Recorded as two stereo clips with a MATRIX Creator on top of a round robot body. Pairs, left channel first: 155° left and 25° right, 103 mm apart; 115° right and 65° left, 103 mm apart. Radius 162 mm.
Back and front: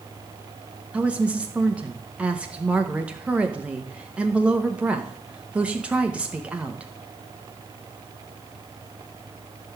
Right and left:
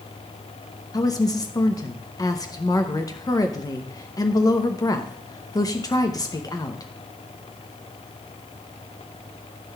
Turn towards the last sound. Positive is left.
turn(degrees=-95)